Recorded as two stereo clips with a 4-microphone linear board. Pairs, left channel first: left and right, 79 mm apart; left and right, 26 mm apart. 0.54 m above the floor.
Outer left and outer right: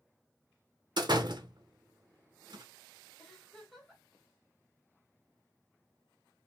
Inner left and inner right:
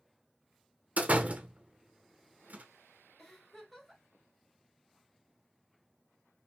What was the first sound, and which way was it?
A door slam, 65° right (ahead or behind).